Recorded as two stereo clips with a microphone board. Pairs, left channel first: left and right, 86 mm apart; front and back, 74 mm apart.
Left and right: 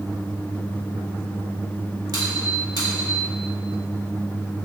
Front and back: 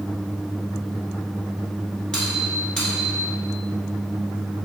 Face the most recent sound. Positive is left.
turn(degrees=-75)